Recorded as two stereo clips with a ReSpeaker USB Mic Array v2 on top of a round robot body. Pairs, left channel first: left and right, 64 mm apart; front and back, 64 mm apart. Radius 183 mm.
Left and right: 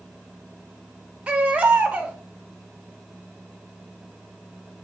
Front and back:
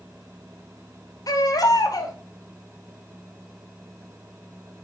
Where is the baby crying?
20° right, 2 m.